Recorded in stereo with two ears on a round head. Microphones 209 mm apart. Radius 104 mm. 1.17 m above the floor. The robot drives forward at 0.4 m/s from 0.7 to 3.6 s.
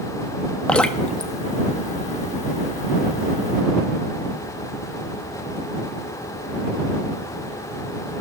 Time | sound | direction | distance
0.7 | dripping | 5° left (ahead or behind) | 0.6 m